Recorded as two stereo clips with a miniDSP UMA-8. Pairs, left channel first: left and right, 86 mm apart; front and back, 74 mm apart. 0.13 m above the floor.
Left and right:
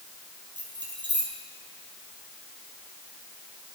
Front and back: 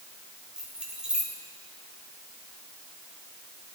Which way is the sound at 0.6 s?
105° right.